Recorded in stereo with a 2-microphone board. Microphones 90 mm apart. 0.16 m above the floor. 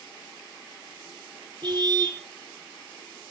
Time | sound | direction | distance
1.6 | a car horn | 50° right (ahead or behind) | 2 m